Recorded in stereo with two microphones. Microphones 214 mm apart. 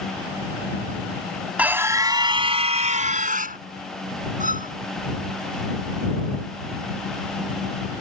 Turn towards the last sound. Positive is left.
turn(degrees=-40)  # may be behind; listen again after turning